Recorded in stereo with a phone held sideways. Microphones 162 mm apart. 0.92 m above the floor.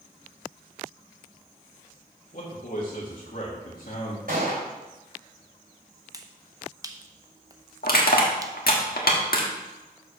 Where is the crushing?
80° left, 1.4 m.